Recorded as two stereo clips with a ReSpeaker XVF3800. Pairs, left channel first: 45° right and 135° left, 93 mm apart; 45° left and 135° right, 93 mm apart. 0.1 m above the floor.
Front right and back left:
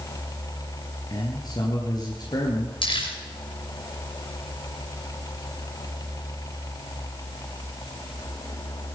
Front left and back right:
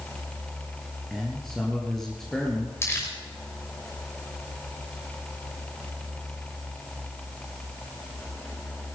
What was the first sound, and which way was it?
A man speaking, 40° right.